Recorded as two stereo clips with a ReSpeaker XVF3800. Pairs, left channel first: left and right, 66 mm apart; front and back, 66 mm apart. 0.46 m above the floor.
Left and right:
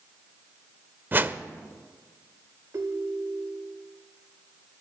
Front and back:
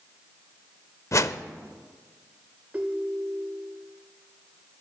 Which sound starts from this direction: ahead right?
A whoosh, at 1.1 s.